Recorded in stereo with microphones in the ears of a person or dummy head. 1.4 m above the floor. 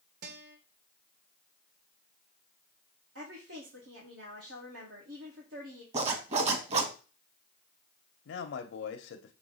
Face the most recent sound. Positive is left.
turn(degrees=75)  # may be behind; listen again after turning